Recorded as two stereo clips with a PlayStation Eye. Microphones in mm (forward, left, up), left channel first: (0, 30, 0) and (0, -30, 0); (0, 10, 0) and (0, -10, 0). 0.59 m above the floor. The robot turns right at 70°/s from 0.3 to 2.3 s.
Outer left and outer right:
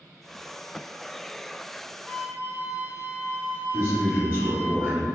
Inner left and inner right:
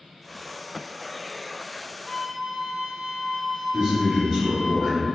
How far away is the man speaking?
About 1.1 m.